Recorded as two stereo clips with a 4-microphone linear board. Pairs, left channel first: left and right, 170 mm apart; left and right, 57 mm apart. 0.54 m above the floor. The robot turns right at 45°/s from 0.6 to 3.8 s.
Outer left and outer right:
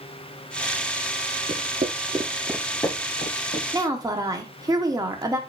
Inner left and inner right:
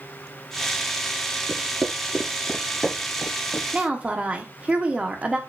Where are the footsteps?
40° right (ahead or behind), 0.7 m; by 3.6 s 65° left (ahead or behind), 1.1 m.